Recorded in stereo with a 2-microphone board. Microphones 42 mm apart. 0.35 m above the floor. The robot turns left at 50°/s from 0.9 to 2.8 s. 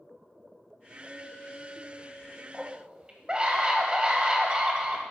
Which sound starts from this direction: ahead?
A clink, at 1.0 s.